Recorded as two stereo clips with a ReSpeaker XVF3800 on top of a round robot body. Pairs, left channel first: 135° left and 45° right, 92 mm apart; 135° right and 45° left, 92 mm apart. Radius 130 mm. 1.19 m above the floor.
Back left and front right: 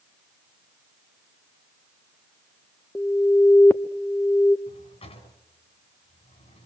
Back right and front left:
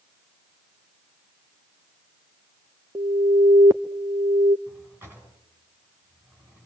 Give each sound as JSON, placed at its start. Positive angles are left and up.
{"t": 3.0, "sound": "an alarm", "azimuth_deg": 80, "distance_m": 1.0}
{"t": 4.7, "sound": "a drawer", "azimuth_deg": 115, "distance_m": 4.0}